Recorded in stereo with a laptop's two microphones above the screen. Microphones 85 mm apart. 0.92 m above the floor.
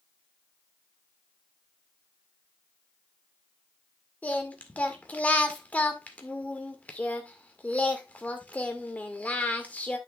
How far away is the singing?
About 1.8 m.